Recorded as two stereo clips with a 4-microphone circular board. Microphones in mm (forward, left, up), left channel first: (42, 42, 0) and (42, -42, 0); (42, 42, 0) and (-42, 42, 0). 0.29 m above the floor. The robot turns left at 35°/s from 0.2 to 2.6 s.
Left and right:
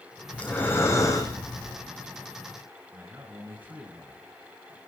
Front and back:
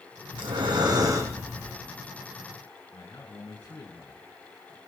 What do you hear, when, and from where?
0.3 s breathing: 165° left, 4 m; by 1.8 s 115° left, 4 m
2.9 s a man speaking: 30° right, 3.5 m